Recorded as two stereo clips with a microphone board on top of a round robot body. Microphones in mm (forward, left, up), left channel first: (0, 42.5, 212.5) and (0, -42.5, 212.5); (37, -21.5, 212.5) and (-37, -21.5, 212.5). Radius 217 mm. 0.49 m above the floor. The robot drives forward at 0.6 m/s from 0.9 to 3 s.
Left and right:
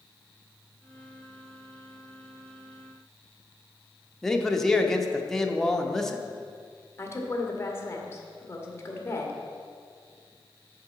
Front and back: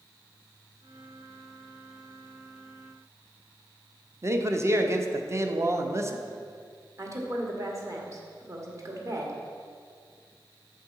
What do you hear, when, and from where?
4.2 s a man speaking: 175° left, 1.1 m
7.0 s a woman speaking: 145° left, 1.8 m